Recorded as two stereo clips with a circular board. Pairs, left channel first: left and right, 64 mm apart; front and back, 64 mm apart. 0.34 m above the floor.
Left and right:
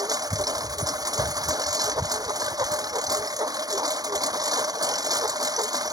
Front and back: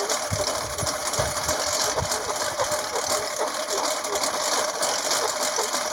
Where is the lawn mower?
90° right.